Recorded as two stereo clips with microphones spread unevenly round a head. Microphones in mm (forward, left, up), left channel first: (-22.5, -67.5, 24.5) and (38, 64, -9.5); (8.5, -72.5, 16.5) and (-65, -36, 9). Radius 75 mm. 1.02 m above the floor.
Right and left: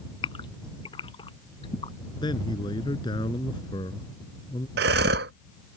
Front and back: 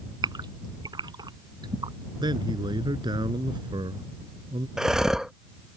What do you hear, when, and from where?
0.2 s a gasp: 175° right
2.2 s a man speaking: 175° right
4.8 s breathing: 70° left